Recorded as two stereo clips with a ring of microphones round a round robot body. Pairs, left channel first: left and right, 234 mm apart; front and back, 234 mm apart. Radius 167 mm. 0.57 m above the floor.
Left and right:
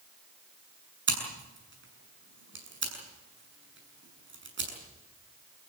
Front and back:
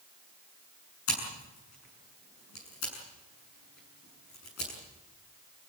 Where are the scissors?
50° right, 7 m.